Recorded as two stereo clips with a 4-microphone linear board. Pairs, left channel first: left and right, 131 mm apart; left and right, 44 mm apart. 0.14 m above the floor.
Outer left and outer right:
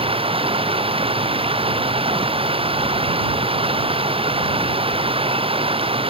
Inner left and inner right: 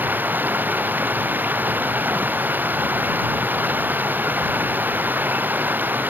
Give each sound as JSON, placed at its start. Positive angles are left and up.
{"t": 0.0, "sound": "running water", "side_deg": -45}